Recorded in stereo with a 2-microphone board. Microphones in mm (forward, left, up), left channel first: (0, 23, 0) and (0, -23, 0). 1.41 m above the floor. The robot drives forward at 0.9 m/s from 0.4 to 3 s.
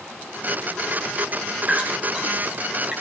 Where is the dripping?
30° right (ahead or behind), 5 m; by 2.9 s 25° right (ahead or behind), 6 m.